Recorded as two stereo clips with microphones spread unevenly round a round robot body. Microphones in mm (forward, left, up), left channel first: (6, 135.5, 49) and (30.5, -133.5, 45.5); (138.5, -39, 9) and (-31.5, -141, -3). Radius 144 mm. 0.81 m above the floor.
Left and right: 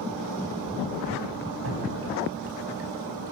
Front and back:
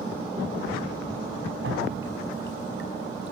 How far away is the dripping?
About 5.5 m.